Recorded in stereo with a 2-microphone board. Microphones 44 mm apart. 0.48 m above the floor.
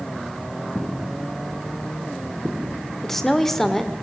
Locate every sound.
0.8 s footsteps: 25° left (ahead or behind), 1.7 m; by 2.9 s 25° right (ahead or behind), 1.5 m
3.0 s a woman speaking: 5° left (ahead or behind), 1.7 m